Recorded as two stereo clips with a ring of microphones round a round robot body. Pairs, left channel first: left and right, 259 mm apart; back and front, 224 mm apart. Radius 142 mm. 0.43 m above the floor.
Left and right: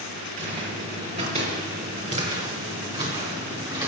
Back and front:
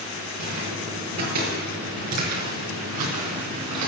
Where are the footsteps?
25° right, 5.5 m; by 3.9 s 15° right, 3 m.